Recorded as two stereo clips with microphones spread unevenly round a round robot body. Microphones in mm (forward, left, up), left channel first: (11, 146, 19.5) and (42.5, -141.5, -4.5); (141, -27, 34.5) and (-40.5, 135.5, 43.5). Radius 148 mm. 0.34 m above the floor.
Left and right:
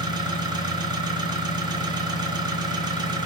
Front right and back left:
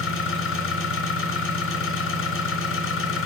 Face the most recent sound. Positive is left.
turn(degrees=-10)